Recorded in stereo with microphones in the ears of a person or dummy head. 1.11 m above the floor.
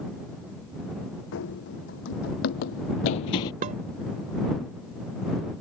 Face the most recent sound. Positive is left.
turn(degrees=-40)  # may be behind; listen again after turning